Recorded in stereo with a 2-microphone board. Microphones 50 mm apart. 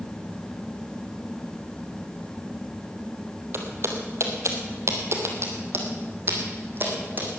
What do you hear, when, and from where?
3.5 s footsteps: 55° right (ahead or behind), 2.5 m; by 7.4 s 40° right (ahead or behind), 4 m